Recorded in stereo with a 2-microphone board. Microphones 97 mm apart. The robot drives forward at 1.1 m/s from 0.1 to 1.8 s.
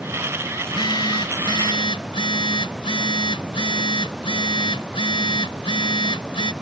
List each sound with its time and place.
0.6 s a phone buzzing: 55° left (ahead or behind); by 6.5 s 65° left (ahead or behind)